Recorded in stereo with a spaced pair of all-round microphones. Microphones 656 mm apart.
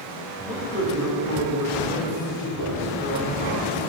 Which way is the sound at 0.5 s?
70° left (ahead or behind).